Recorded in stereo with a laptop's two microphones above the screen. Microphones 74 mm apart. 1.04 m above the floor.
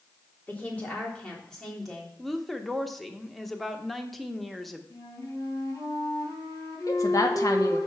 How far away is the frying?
No frying in this recording.